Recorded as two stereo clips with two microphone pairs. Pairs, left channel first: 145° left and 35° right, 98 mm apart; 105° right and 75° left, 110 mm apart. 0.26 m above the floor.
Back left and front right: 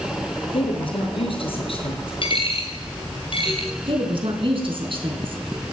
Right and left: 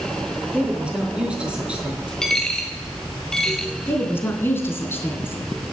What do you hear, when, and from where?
0.5 s a woman speaking: 155° left, 5 m
2.2 s a dropped coin: 175° left, 2 m
3.9 s a woman speaking: 35° right, 3.5 m